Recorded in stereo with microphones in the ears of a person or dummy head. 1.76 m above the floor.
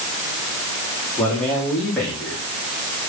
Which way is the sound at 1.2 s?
5° left (ahead or behind).